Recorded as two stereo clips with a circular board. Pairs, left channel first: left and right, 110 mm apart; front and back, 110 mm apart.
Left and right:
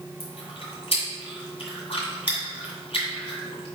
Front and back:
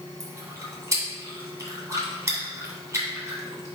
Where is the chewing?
115° left, 1.6 m.